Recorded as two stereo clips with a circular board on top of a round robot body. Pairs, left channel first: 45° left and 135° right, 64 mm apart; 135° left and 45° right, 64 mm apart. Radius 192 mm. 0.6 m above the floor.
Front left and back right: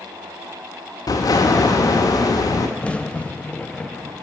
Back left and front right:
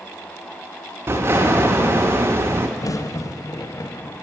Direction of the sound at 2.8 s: 115° left.